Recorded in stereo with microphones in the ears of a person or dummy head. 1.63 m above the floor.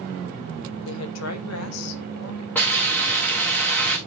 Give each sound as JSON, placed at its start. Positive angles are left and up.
{"t": 0.8, "sound": "a woman speaking", "side_deg": 75, "distance_m": 1.0}
{"t": 2.5, "sound": "a hiss", "side_deg": 10, "distance_m": 1.9}